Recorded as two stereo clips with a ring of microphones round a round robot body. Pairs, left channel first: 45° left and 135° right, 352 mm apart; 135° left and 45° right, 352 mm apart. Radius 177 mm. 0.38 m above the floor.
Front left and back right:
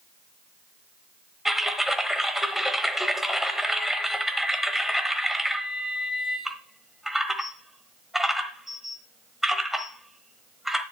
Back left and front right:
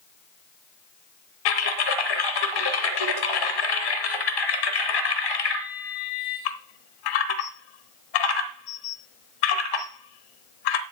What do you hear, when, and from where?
1.4 s typing on a keyboard: 135° left, 1.0 m